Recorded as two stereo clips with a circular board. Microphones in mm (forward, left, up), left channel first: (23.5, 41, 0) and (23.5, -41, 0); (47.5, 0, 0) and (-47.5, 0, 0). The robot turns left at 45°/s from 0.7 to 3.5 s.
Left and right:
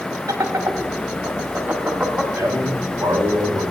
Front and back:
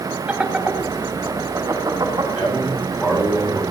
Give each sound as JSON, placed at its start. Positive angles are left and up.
{"t": 0.3, "sound": "laughter", "azimuth_deg": -105, "distance_m": 1.8}
{"t": 2.4, "sound": "a man speaking", "azimuth_deg": -30, "distance_m": 3.5}